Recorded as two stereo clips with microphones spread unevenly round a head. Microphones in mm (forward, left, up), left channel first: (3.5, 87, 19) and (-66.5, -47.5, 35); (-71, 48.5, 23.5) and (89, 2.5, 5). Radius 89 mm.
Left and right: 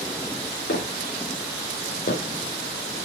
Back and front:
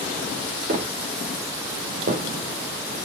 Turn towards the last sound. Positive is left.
turn(degrees=15)